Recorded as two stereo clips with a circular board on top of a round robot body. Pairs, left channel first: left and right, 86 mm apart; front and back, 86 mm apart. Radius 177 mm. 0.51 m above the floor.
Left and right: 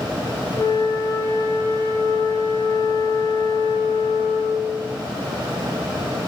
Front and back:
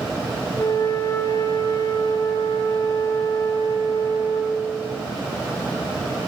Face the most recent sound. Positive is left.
turn(degrees=45)